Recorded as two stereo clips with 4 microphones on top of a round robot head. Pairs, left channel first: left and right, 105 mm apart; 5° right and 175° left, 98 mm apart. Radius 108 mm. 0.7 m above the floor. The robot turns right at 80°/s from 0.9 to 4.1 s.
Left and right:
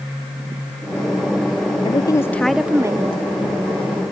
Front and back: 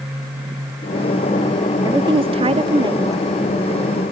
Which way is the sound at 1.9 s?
125° left.